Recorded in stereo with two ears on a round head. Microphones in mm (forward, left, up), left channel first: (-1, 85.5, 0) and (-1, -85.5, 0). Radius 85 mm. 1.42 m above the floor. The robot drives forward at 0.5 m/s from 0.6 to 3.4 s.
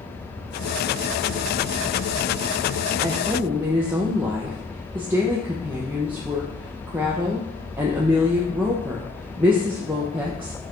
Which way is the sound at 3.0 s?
15° right (ahead or behind).